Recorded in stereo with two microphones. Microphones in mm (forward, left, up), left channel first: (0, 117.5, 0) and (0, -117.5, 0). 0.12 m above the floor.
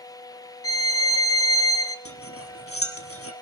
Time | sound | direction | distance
0.6 | a violin | 65° left (ahead or behind) | 0.7 m
2.0 | cutlery clinking | 65° left (ahead or behind) | 1.7 m